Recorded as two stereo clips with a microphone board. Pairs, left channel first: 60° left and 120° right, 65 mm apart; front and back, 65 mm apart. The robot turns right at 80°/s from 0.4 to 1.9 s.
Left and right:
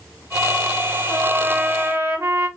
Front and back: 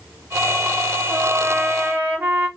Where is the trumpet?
155° left, 1.4 m; by 2.5 s 140° right, 1.4 m.